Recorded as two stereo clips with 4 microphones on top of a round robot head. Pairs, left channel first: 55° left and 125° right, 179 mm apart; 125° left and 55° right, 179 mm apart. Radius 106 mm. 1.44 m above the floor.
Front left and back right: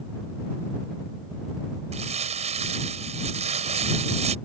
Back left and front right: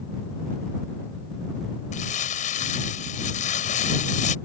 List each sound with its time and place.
1.9 s crumpling: straight behind